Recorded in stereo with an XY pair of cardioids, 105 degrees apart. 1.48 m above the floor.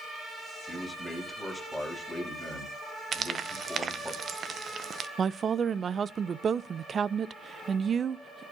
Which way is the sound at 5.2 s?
40° right.